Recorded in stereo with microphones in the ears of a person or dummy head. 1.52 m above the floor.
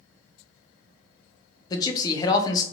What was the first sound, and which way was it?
A man speaking, 25° left (ahead or behind).